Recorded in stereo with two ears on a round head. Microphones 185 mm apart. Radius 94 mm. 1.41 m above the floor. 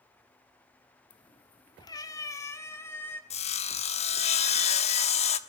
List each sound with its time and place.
1.1 s a cat meowing: 25° left (ahead or behind), 1.0 m; by 3.2 s 10° left (ahead or behind), 1.9 m
3.3 s sawing: 30° left (ahead or behind), 1.1 m